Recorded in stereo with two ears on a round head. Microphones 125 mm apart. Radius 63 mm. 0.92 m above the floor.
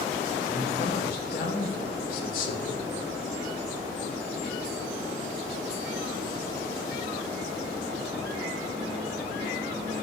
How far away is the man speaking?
About 3 m.